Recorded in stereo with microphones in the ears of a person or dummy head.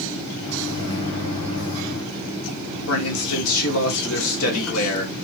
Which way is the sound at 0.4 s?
75° left (ahead or behind).